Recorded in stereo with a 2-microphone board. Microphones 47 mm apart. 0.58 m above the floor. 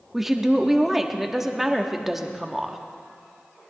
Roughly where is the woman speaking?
Centre.